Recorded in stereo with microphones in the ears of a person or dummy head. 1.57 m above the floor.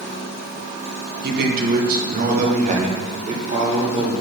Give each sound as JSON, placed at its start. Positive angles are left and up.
{"t": 1.2, "sound": "a man speaking", "side_deg": -55, "distance_m": 1.5}